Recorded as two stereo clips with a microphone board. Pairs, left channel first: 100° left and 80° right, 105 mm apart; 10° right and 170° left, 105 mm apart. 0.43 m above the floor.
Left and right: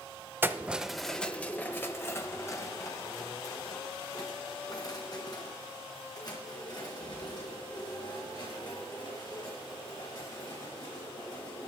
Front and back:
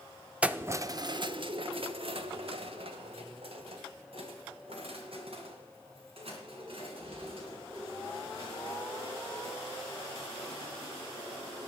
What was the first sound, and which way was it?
Keys jangling, 120° right.